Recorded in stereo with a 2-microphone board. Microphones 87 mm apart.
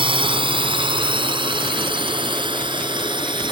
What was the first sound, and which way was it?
A drone, 65° right (ahead or behind).